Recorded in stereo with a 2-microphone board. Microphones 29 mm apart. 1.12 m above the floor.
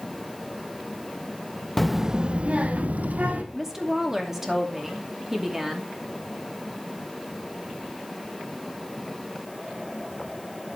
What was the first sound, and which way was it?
A child speaking, 5° left (ahead or behind).